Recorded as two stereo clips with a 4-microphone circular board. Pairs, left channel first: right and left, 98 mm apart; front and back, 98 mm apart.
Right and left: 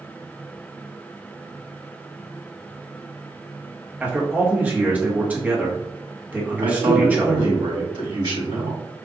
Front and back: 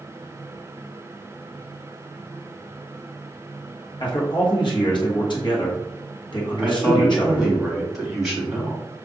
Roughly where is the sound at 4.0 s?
Ahead.